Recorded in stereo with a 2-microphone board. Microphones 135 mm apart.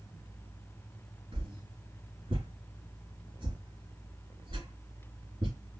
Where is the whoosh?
35° right (ahead or behind), 3 m.